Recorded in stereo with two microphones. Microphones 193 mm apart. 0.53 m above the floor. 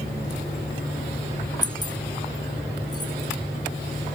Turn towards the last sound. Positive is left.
turn(degrees=20)  # may be behind; listen again after turning